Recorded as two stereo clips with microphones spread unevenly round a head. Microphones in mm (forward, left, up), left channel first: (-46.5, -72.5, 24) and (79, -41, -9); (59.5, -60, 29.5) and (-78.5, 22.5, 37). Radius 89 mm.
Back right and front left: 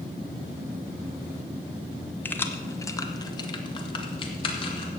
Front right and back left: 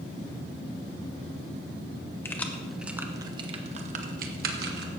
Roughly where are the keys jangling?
Right.